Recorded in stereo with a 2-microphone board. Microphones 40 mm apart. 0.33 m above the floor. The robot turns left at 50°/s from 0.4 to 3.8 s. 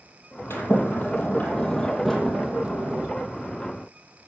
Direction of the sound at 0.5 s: 85° left.